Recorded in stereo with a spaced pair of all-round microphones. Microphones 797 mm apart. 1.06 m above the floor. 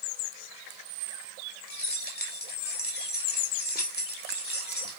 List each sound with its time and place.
1.7 s keys jangling: 10° left (ahead or behind), 2 m